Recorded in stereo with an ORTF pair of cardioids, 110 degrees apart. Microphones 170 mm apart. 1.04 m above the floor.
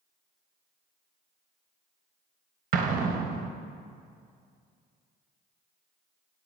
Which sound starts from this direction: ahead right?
An explosion, at 2.7 s.